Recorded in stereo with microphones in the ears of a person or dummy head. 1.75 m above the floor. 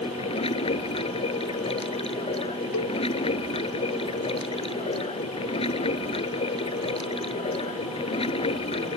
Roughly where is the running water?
Left.